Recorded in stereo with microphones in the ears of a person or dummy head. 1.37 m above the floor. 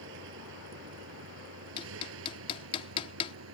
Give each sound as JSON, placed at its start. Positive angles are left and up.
{"t": 0.0, "sound": "a vehicle", "side_deg": -70}
{"t": 1.8, "sound": "hammering", "side_deg": 35}